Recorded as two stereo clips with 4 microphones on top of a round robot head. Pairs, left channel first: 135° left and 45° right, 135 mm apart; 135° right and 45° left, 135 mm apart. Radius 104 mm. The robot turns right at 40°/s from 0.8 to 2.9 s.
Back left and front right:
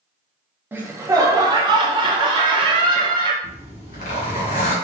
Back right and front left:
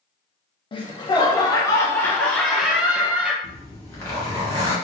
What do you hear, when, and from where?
0.7 s laughter: 115° right, 0.5 m; by 3.3 s 30° right, 0.5 m
3.4 s a zipper: 160° left, 1.8 m